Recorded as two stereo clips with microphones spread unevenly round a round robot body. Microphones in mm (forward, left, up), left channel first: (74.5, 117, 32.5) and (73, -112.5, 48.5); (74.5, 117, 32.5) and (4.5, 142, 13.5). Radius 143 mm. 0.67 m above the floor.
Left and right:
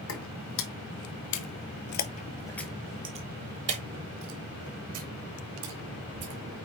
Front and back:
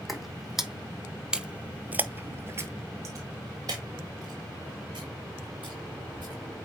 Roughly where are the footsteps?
Ahead left.